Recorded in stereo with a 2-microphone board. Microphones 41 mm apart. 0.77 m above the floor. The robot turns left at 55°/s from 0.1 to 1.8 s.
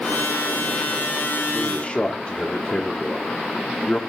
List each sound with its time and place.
1.5 s a man speaking: 10° left (ahead or behind), 1.3 m; by 4.0 s 25° left (ahead or behind), 1.3 m